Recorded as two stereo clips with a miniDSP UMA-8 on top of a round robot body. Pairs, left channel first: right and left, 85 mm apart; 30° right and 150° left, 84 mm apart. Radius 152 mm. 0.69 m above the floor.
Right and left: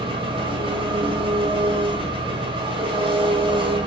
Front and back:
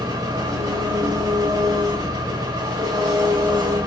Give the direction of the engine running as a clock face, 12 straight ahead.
9 o'clock.